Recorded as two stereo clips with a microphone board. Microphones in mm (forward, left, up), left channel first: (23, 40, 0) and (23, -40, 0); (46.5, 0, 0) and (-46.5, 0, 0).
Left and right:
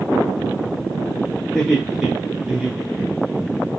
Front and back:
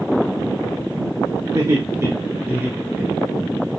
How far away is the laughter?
About 1.5 m.